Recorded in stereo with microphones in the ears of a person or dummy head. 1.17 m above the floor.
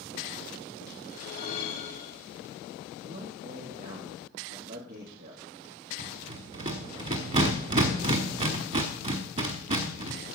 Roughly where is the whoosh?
Left.